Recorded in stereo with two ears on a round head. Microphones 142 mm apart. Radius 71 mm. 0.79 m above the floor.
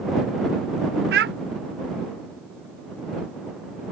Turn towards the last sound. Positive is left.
turn(degrees=-70)  # may be behind; listen again after turning